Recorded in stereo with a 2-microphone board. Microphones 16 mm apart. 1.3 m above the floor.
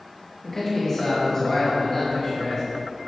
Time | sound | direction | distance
0.4 | a man speaking | 30° left (ahead or behind) | 2.5 m